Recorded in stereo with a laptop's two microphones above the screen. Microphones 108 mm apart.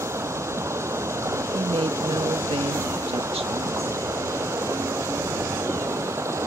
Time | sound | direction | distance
0.0 | running water | 25° right (ahead or behind) | ?
1.5 | a woman speaking | 70° right (ahead or behind) | ?